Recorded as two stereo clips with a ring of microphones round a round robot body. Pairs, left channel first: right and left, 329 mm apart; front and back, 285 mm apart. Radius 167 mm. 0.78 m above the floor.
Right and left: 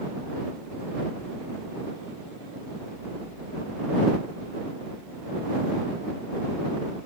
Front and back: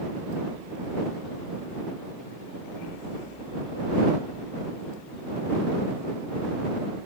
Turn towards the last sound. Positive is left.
No sound to turn to.